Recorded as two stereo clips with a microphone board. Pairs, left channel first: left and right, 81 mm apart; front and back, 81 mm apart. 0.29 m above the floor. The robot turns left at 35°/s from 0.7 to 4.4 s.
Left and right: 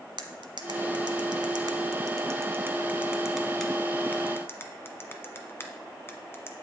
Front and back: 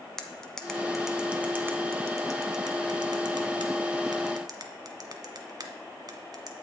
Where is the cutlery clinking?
85° right, 1.4 m; by 6.5 s 145° left, 1.4 m.